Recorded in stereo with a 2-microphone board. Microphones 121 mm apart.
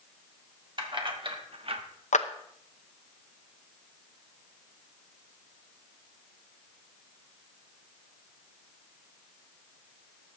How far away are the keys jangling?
About 1.5 m.